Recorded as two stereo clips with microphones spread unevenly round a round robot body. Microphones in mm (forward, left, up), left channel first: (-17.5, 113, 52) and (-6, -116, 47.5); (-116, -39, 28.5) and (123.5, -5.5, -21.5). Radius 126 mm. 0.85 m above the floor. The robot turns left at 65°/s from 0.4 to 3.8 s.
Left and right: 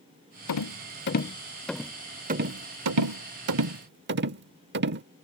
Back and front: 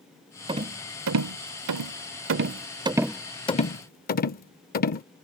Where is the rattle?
85° left; by 5.0 s 130° right.